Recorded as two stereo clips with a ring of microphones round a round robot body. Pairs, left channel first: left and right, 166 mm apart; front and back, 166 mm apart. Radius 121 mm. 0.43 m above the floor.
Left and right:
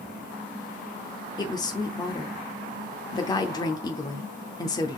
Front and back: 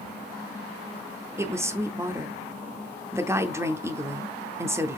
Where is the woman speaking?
125° left, 0.8 m.